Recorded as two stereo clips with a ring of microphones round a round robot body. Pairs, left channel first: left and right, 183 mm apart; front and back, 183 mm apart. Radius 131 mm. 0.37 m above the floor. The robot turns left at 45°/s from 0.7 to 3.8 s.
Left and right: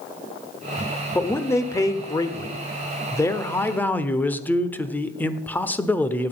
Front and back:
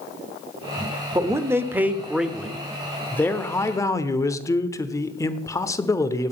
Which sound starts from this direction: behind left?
A man speaking, at 1.1 s.